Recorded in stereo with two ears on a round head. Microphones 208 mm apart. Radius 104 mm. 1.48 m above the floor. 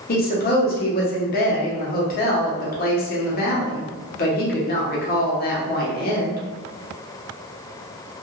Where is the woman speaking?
40° left (ahead or behind), 0.8 m.